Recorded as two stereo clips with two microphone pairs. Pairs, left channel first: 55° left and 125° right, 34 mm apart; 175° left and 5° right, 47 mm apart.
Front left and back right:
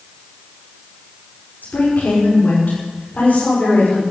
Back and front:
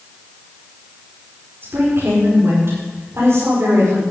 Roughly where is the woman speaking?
Ahead left.